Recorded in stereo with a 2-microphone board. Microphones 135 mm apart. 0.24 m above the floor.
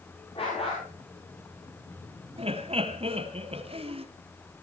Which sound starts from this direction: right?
Laughter, at 2.4 s.